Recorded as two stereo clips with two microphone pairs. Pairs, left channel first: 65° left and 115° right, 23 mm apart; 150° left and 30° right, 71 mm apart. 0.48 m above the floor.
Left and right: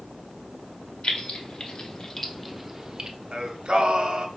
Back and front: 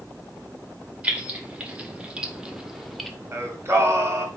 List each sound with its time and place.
1.0 s keys jangling: 40° left, 1.0 m; by 3.1 s 125° right, 0.6 m
3.3 s singing: 80° right, 1.0 m